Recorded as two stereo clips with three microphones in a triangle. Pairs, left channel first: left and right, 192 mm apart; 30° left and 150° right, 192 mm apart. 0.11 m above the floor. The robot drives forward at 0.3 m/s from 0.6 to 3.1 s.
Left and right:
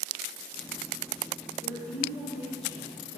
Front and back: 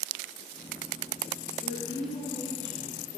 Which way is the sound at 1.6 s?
140° left.